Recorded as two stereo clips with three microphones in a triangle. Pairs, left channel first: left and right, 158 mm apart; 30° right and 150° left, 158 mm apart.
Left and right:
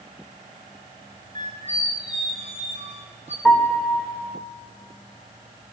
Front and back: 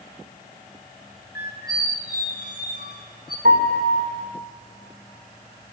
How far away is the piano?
About 1.8 m.